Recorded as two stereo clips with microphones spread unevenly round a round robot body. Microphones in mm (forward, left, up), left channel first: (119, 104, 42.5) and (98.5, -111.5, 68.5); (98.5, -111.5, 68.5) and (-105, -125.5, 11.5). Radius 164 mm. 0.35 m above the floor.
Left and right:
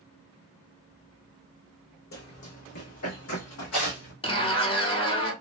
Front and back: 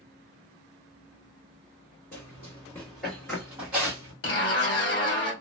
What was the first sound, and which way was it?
Running footsteps, 65° left.